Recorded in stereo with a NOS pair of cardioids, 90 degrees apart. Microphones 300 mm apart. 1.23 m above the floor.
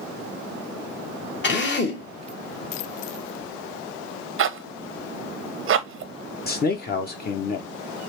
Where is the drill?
40° left, 1.1 m.